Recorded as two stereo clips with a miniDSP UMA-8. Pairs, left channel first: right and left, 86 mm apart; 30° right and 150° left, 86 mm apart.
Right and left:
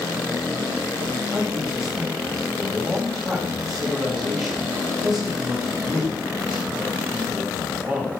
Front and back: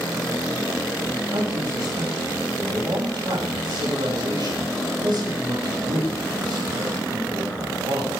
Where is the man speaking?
175° left, 6.5 m.